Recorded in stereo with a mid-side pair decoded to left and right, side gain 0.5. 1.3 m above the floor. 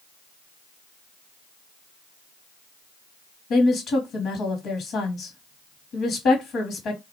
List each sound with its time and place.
3.5 s a woman speaking: 65° left, 1.1 m